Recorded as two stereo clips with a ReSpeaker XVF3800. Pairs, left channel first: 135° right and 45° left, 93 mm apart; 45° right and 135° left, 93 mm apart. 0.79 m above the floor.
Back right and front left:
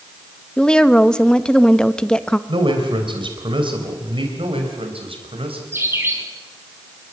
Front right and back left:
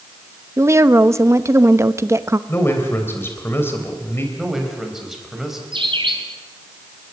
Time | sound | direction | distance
0.6 | a woman speaking | 150° left | 0.8 m
2.5 | a man speaking | 20° left | 3.5 m
4.4 | a man speaking | 50° left | 5 m
5.7 | a bird | 110° left | 3 m